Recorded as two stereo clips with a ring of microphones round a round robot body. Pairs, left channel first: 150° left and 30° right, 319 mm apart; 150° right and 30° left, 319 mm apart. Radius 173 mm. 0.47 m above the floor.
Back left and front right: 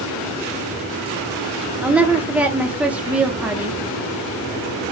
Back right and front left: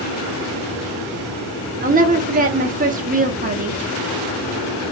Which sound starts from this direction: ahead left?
A woman speaking, at 1.8 s.